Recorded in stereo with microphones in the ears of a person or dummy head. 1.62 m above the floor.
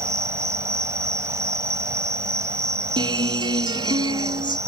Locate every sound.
0.0 s an insect: 15° right (ahead or behind)
3.0 s a guitar: 25° right (ahead or behind)